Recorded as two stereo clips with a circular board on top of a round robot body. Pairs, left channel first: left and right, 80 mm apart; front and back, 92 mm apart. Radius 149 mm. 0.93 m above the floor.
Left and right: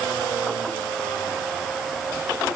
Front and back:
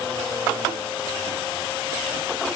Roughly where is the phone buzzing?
I don't hear a phone buzzing.